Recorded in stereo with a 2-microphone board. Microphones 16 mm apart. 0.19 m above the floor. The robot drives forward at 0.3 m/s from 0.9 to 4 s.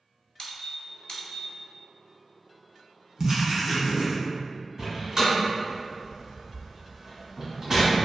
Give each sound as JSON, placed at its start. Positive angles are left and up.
{"t": 0.4, "sound": "a squeak", "side_deg": 65, "distance_m": 0.7}
{"t": 3.2, "sound": "writing", "side_deg": -25, "distance_m": 0.7}
{"t": 4.8, "sound": "a door slam", "side_deg": -25, "distance_m": 1.3}